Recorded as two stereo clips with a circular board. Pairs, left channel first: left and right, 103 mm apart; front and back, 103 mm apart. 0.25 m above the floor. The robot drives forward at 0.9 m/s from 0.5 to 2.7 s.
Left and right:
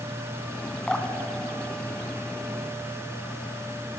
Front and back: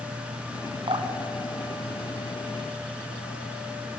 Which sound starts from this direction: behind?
Dripping, at 0.9 s.